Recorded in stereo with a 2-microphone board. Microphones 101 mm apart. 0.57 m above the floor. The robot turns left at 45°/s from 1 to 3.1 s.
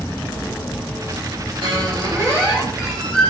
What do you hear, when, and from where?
1.6 s a squeak: 120° right, 7 m; by 3.3 s 170° left, 7 m